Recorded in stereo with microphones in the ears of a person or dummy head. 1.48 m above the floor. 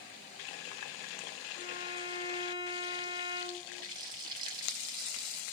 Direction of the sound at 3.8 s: 25° right (ahead or behind).